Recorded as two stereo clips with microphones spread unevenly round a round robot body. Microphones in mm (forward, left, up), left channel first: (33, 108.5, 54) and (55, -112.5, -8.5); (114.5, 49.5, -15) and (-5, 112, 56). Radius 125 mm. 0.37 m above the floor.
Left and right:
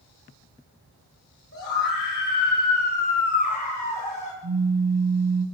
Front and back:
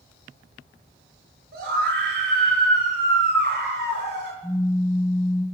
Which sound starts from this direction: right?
A pop, at 4.4 s.